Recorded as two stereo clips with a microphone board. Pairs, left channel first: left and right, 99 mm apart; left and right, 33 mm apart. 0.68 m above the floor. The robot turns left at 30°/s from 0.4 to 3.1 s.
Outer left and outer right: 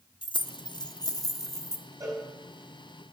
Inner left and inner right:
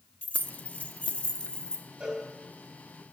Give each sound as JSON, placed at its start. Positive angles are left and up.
{"t": 0.2, "sound": "keys jangling", "side_deg": 55, "distance_m": 0.9}
{"t": 2.0, "sound": "a cowbell", "side_deg": -35, "distance_m": 4.5}